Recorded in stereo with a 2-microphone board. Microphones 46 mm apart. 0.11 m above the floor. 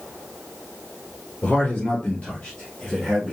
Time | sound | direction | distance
1.4 | a man speaking | 35° left (ahead or behind) | 1.7 m